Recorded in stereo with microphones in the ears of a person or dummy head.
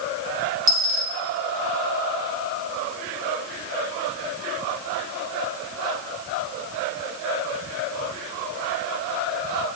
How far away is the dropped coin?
About 0.8 m.